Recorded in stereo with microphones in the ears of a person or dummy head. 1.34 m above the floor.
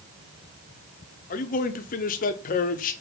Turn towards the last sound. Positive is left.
turn(degrees=40)  # may be behind; listen again after turning